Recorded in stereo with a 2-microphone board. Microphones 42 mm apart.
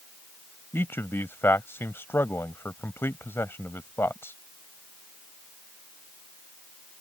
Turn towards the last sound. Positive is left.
turn(degrees=75)  # may be behind; listen again after turning